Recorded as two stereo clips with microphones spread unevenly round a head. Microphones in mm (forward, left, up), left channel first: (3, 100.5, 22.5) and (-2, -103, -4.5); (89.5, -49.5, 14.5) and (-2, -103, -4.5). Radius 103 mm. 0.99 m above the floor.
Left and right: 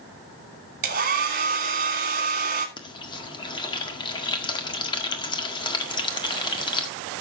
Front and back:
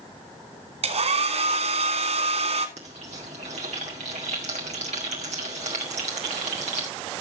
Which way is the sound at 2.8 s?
160° left.